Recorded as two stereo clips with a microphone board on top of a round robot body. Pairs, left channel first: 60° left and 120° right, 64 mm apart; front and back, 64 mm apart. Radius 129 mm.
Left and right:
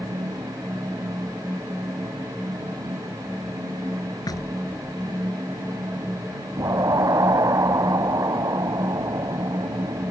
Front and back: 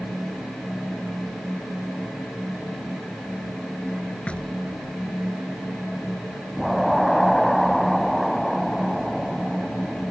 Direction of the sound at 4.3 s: 75° left.